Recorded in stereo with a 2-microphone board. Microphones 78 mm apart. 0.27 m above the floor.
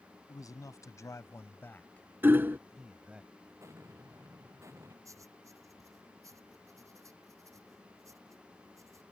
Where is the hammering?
25° right (ahead or behind).